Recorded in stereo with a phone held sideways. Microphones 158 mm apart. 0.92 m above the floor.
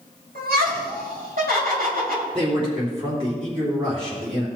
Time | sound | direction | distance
0.3 | laughter | 75° right (ahead or behind) | 4.5 m
2.3 | a man speaking | 35° right (ahead or behind) | 3 m